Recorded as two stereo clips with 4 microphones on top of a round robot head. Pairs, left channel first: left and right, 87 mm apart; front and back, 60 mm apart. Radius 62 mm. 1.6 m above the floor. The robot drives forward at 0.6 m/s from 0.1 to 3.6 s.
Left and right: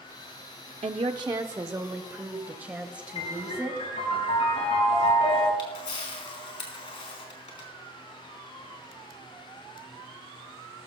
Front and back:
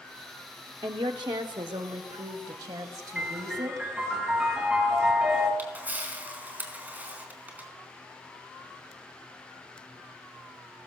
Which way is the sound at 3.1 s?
105° left.